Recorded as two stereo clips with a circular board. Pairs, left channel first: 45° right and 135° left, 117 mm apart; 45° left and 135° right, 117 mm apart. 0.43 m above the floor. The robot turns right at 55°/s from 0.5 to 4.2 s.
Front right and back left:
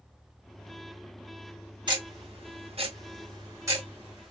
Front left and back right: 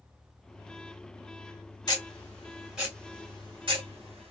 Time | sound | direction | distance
1.9 | ticking | 95° left | 2.5 m